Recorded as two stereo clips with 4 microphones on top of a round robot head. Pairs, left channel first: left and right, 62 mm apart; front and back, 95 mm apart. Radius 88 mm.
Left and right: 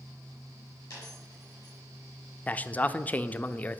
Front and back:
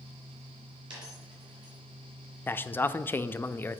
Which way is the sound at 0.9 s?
145° left.